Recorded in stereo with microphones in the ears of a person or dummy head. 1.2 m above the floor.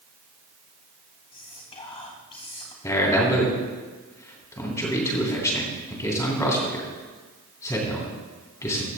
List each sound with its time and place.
1.3 s whispering: 25° left (ahead or behind), 2 m
2.8 s a man speaking: 15° left (ahead or behind), 3.5 m